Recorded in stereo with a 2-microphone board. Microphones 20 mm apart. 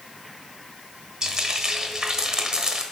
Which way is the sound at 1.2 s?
35° right (ahead or behind).